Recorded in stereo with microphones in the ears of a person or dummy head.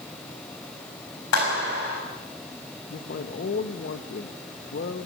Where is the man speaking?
50° left (ahead or behind), 1.2 m.